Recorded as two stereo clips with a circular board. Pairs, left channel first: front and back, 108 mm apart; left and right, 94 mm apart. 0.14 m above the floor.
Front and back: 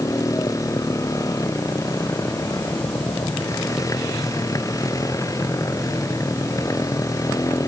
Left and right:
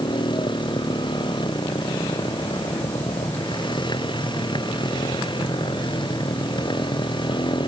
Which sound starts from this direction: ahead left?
A motorcycle, at 0.0 s.